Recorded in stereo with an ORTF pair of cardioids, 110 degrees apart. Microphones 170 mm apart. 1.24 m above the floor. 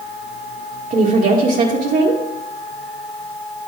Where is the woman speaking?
55° right, 1.8 m.